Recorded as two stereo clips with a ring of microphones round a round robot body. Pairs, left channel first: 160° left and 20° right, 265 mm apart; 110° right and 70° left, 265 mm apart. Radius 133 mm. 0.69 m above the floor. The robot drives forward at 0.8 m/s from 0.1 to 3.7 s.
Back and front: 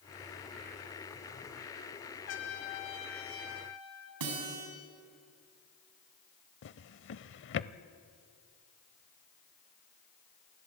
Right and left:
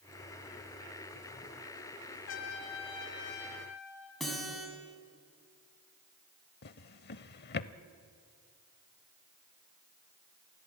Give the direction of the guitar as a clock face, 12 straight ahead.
1 o'clock.